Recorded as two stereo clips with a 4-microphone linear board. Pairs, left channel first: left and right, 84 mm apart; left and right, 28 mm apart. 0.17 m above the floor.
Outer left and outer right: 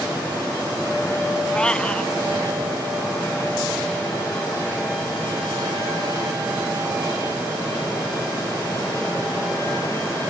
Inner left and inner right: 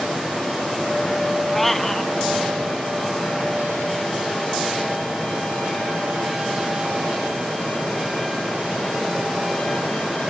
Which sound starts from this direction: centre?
A cat meowing, at 1.5 s.